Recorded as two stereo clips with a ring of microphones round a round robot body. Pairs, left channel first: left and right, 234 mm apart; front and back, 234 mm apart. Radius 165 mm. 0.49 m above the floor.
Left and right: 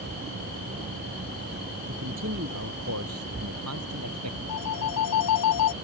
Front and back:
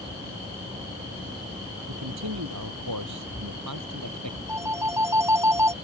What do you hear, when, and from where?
1.9 s a man speaking: 145° right; by 4.4 s 135° right
4.5 s a phone ringing: 100° left